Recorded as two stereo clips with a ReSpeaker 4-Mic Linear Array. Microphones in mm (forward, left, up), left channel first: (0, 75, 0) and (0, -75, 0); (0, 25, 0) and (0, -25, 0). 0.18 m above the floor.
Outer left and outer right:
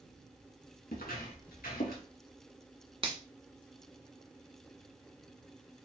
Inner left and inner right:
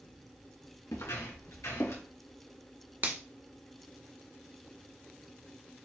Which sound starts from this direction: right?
A finger snap, at 3.0 s.